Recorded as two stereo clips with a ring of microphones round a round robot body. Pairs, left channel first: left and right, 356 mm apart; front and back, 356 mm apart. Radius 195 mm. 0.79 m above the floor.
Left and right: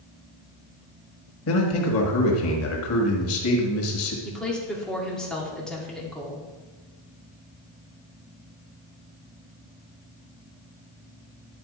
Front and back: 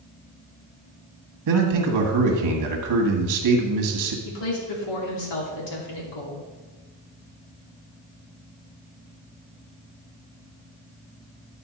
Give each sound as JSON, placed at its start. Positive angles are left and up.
{"t": 1.5, "sound": "a man speaking", "azimuth_deg": 140, "distance_m": 1.4}
{"t": 4.2, "sound": "a woman speaking", "azimuth_deg": 0, "distance_m": 2.0}